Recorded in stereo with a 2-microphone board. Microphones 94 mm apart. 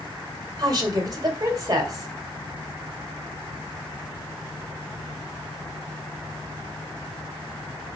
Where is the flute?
No flute in this recording.